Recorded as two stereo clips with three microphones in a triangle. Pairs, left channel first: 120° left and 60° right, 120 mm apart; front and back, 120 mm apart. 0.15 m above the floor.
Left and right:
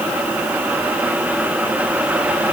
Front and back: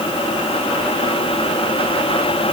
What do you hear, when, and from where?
Only background noise.